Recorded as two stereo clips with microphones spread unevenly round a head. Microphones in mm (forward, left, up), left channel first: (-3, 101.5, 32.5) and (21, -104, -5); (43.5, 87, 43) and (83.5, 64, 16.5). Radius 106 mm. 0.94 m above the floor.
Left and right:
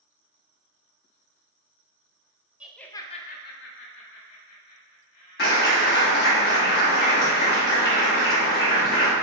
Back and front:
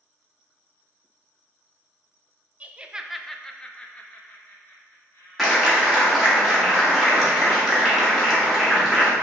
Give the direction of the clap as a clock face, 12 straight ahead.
10 o'clock.